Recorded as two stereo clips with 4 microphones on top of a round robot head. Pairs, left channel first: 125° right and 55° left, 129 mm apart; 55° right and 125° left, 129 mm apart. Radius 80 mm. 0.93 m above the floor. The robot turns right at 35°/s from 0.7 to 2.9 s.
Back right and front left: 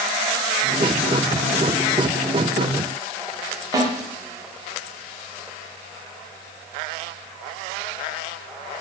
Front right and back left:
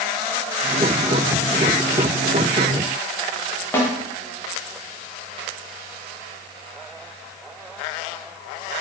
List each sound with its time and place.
3.7 s a snare drum: 10° left, 0.7 m